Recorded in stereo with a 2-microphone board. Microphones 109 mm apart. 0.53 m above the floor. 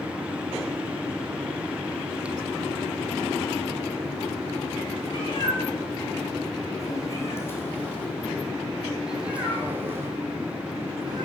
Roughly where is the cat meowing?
Left.